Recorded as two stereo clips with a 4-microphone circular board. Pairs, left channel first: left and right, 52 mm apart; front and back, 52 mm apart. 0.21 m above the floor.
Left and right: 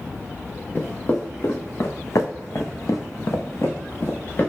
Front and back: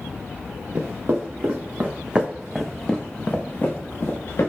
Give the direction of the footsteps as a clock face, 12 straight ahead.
7 o'clock.